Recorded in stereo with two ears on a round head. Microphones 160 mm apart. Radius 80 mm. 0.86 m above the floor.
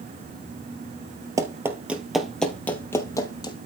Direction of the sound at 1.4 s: 20° right (ahead or behind).